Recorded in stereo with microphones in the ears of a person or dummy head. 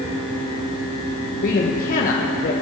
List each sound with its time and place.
0.0 s a fan: 25° right (ahead or behind), 2.5 m
1.4 s a man speaking: 40° left (ahead or behind), 1.3 m